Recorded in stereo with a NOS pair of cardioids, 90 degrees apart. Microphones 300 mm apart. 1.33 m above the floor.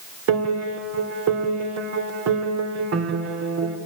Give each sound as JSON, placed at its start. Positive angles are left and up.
{"t": 0.3, "sound": "a piano", "azimuth_deg": -60, "distance_m": 3.5}